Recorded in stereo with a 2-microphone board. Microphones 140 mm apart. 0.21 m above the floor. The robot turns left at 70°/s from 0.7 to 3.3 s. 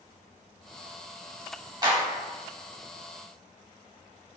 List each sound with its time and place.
1.8 s a clap: 30° right (ahead or behind), 0.9 m